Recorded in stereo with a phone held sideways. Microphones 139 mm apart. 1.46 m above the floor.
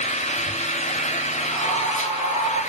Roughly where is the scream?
Left.